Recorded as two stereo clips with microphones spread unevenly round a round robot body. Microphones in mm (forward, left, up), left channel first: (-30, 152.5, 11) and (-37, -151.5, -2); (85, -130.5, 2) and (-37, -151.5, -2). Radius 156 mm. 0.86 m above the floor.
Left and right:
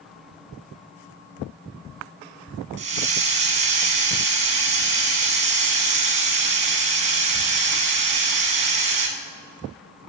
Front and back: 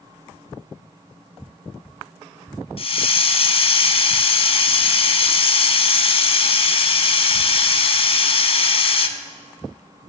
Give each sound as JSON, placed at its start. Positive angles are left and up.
{"t": 2.8, "sound": "a hiss", "azimuth_deg": -25, "distance_m": 0.7}